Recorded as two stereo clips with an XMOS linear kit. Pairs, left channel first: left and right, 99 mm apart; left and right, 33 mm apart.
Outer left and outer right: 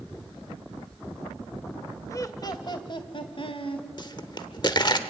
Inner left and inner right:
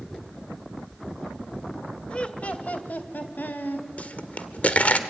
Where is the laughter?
30° left (ahead or behind), 1.5 m; by 3.9 s 60° left (ahead or behind), 3 m.